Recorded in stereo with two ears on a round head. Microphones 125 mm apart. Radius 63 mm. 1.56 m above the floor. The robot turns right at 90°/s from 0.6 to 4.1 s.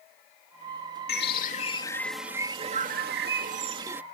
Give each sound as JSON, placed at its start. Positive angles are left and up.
{"t": 1.1, "sound": "a bird", "azimuth_deg": 85}